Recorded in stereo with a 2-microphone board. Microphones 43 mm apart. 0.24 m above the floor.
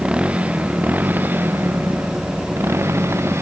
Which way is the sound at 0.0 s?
25° right (ahead or behind).